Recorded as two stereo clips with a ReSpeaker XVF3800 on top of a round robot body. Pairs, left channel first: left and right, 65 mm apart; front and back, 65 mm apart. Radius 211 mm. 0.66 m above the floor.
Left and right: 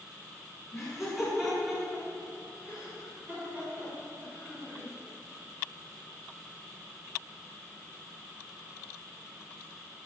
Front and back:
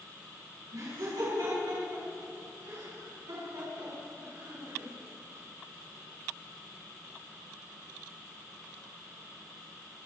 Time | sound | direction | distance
0.7 | laughter | straight behind | 7.5 m